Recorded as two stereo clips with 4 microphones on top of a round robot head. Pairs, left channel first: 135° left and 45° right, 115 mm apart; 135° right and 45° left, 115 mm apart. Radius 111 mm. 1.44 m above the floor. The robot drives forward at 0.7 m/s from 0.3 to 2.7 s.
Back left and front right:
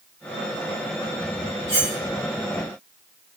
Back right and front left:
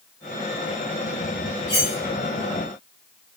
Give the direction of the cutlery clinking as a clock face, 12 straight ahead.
3 o'clock.